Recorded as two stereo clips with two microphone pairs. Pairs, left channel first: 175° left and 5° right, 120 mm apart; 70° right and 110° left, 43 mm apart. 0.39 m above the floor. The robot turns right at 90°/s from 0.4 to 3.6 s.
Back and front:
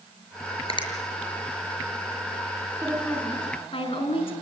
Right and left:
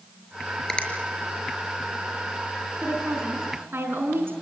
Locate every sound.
0.7 s a finger snap: 145° right, 5 m; by 0.9 s 130° right, 5 m
2.8 s a woman speaking: 65° left, 5.5 m; by 4.3 s 135° left, 5.5 m